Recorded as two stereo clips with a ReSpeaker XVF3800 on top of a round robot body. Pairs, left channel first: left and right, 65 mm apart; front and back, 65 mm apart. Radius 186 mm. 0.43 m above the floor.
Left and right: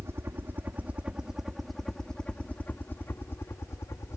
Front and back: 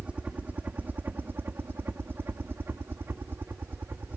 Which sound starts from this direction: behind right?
A helicopter, at 0.0 s.